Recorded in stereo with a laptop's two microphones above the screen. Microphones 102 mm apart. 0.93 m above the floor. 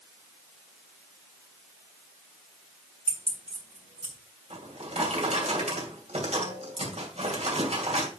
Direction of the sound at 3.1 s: 75° right (ahead or behind).